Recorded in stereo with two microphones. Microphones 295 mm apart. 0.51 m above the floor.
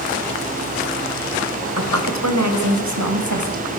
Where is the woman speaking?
60° right (ahead or behind), 2.5 m; by 3.7 s 70° right (ahead or behind), 3.5 m.